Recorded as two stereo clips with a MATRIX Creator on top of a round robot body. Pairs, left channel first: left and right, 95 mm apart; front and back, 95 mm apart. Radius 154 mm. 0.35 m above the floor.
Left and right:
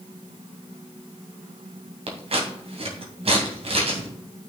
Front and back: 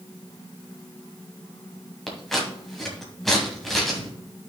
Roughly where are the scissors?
Right.